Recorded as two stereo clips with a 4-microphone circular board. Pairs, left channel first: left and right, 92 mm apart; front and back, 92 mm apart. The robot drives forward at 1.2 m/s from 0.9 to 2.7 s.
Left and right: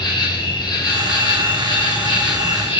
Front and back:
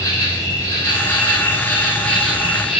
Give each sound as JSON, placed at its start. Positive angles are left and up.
{"t": 0.0, "sound": "an insect", "azimuth_deg": 60, "distance_m": 4.5}